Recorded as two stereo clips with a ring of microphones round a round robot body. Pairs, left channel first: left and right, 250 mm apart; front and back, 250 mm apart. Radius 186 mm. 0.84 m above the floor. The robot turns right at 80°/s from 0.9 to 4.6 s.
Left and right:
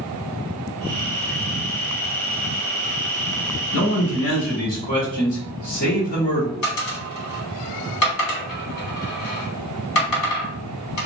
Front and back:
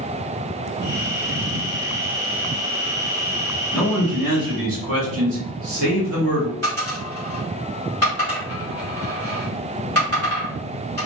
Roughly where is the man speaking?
Left.